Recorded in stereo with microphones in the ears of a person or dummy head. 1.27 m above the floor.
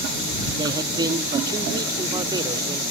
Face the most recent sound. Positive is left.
turn(degrees=-20)  # may be behind; listen again after turning